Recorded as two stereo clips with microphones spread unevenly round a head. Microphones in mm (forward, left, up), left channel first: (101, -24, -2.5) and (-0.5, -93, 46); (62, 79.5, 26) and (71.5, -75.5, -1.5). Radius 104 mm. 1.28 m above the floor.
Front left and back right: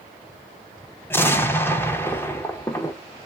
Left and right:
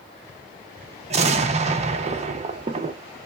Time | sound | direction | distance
1.1 | an explosion | 60° right | 0.5 m